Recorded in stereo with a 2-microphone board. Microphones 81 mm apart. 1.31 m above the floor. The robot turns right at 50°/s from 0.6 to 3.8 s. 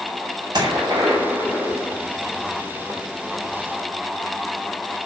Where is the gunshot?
60° right, 5 m; by 2.0 s 10° left, 5 m.